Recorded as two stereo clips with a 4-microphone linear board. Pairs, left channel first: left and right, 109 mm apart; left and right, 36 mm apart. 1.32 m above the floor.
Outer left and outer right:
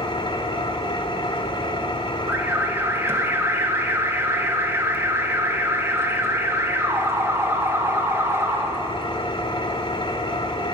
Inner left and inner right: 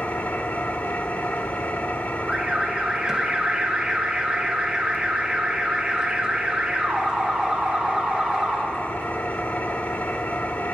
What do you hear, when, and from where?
0.0 s an engine running: 55° left (ahead or behind), 2.5 m
2.3 s an alarm: 25° right (ahead or behind), 2.5 m